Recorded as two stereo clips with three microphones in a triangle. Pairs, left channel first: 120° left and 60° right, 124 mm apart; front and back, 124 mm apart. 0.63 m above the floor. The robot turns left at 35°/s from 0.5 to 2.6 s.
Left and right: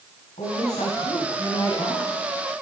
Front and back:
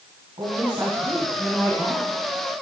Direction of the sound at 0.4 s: 135° left.